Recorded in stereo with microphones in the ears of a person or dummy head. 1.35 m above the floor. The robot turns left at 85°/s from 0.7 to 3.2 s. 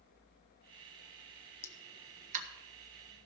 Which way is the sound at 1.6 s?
15° left (ahead or behind).